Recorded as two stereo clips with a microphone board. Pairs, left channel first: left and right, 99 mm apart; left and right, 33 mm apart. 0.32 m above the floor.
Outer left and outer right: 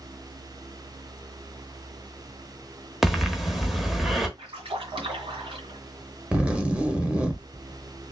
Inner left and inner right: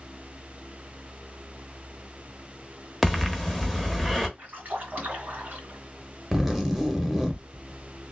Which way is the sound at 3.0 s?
Centre (ahead or behind).